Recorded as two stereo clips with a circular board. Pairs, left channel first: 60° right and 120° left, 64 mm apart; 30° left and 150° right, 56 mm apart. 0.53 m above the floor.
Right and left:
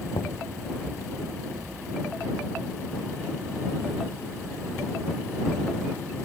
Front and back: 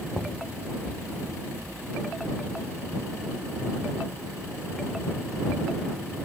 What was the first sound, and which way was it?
Knocking, 50° right.